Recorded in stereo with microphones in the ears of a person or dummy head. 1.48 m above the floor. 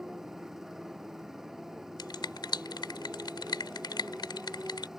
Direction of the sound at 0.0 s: 5° right (ahead or behind).